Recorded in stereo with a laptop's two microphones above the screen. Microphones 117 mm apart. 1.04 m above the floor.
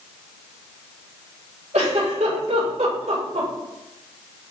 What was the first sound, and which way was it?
A giggle, 80° right.